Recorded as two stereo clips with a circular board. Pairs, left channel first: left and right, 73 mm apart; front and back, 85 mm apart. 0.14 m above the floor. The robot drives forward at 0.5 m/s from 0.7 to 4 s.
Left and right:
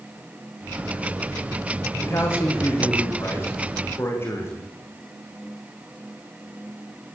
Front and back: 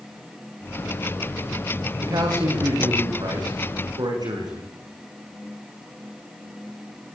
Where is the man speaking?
140° left, 6.5 m; by 4.7 s 145° left, 7.5 m.